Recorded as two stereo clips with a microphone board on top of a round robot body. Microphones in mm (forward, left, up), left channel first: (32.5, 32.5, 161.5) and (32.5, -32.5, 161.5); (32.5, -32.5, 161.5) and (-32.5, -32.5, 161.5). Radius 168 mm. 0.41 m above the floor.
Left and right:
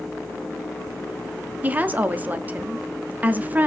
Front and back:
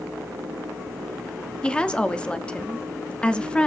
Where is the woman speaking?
55° right, 1.4 m.